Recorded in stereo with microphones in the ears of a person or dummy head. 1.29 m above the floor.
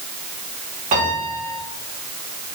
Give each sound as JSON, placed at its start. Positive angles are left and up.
{"t": 0.9, "sound": "a piano", "side_deg": -35, "distance_m": 2.5}